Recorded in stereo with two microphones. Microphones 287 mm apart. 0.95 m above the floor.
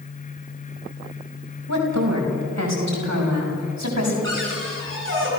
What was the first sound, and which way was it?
A woman speaking, 80° right.